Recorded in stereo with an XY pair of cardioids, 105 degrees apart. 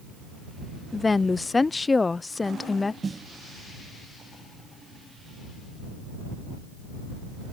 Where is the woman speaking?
20° left.